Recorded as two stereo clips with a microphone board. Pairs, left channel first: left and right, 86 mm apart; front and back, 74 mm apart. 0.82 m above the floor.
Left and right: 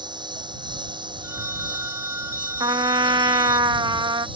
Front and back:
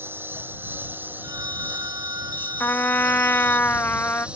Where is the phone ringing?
150° right.